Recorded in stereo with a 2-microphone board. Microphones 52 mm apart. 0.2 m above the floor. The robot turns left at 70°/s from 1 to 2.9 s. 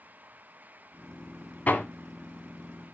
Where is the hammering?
30° left (ahead or behind), 1.1 m; by 1.8 s 35° left (ahead or behind), 1.1 m.